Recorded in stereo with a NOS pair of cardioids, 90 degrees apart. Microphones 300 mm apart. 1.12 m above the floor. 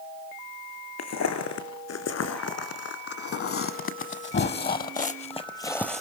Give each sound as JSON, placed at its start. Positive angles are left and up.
{"t": 1.0, "sound": "footsteps", "azimuth_deg": 65, "distance_m": 3.5}